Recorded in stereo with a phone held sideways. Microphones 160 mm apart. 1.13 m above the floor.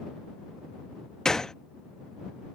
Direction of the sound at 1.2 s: 5° left (ahead or behind).